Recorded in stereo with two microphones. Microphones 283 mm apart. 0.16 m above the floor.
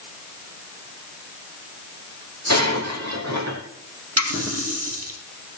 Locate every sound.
2.5 s breaking glass: 65° right (ahead or behind), 3 m
4.2 s a running tap: 55° right (ahead or behind), 3 m